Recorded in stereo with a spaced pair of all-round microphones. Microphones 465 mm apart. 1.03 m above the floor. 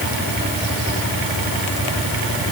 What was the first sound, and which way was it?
Only background noise.